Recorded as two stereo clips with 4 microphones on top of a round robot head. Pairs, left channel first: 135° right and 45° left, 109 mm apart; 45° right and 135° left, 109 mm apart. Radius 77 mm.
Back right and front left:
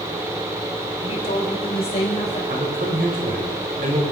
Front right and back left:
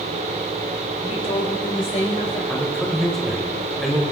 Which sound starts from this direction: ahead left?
A man speaking, at 2.5 s.